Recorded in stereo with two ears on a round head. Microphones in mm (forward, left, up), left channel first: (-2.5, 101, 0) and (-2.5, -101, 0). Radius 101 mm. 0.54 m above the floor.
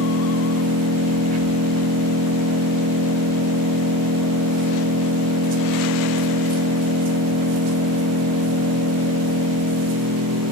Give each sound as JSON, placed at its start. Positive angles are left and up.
{"t": 0.0, "sound": "an engine running", "side_deg": -80, "distance_m": 0.8}